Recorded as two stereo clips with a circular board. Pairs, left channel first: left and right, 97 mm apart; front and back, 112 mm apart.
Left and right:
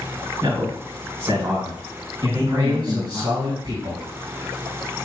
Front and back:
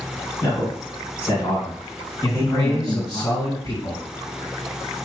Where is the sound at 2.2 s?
55° right, 3 m.